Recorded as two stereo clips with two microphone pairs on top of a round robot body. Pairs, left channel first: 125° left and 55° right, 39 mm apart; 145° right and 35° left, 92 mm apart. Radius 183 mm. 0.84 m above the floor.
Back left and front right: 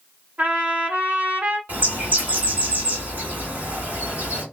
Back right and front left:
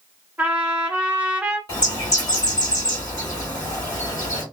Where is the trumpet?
35° right, 1.2 m.